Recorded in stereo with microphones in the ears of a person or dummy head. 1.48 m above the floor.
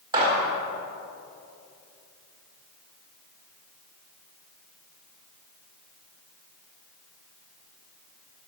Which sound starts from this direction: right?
A gunshot, at 0.1 s.